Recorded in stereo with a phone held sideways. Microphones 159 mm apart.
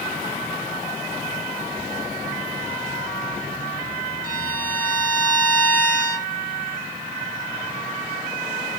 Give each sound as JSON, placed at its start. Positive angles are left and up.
{"t": 4.2, "sound": "a violin", "side_deg": 60, "distance_m": 1.5}